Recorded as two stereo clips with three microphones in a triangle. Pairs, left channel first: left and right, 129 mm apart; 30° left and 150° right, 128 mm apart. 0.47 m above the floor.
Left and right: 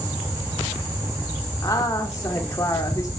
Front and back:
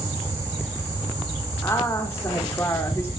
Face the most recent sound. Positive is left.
turn(degrees=70)